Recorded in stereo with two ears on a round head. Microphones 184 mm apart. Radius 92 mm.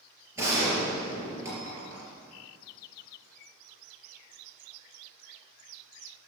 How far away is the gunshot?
About 3.5 m.